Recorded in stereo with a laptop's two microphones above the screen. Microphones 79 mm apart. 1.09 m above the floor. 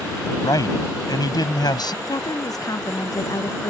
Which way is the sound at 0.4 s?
55° left (ahead or behind).